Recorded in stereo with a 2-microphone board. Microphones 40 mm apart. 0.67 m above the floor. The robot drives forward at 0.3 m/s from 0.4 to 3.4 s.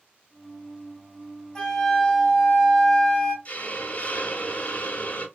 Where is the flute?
25° left (ahead or behind), 0.6 m; by 3.4 s 15° left (ahead or behind), 1.1 m.